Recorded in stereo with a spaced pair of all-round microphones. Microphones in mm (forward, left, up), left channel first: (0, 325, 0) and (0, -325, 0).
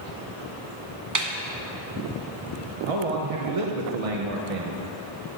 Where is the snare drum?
30° right (ahead or behind), 0.7 m.